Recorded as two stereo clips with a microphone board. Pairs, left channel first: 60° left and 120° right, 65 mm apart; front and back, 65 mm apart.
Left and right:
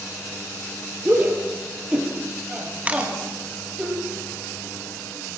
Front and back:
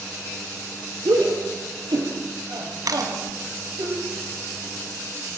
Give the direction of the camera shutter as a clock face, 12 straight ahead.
6 o'clock.